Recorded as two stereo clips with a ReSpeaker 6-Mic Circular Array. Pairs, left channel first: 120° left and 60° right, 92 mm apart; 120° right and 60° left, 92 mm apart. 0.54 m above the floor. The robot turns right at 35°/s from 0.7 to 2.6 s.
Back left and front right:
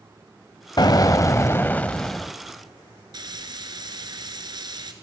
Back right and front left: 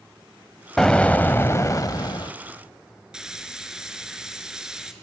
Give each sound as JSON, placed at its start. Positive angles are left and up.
{"t": 0.8, "sound": "an explosion", "azimuth_deg": 155, "distance_m": 0.5}
{"t": 3.1, "sound": "frying", "azimuth_deg": -25, "distance_m": 1.4}